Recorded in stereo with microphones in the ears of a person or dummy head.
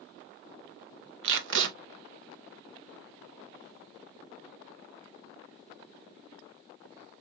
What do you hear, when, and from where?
1.2 s tape being pulled: 75° right (ahead or behind), 0.7 m